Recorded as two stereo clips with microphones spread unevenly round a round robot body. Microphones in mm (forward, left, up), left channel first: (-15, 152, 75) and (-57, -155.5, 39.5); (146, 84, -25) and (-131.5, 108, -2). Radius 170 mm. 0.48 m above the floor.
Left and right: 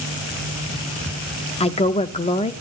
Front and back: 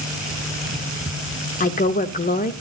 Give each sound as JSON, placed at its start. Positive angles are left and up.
{"t": 1.6, "sound": "a woman speaking", "azimuth_deg": 15, "distance_m": 0.8}